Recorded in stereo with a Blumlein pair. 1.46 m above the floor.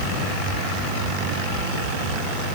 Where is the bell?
I don't hear a bell.